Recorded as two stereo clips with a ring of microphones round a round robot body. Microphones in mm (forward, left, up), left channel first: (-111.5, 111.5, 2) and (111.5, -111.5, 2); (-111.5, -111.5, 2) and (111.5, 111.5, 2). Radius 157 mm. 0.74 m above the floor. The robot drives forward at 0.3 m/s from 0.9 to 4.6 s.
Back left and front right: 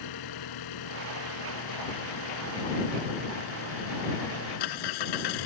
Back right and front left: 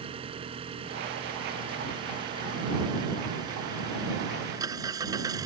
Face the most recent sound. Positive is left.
turn(degrees=125)